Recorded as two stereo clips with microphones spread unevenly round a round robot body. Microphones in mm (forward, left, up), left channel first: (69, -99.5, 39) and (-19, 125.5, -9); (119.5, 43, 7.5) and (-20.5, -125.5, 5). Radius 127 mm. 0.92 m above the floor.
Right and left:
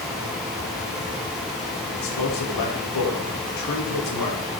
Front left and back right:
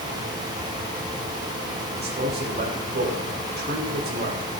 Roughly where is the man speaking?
Right.